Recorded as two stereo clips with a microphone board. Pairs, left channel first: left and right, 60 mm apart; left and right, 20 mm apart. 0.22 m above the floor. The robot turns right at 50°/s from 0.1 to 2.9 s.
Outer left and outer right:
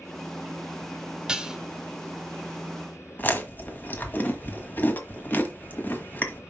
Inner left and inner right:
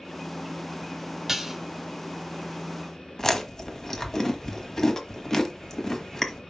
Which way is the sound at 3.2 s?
35° left (ahead or behind).